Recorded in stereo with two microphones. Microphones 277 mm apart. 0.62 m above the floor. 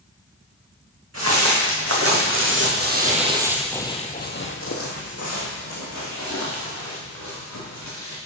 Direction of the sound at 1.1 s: 60° right (ahead or behind).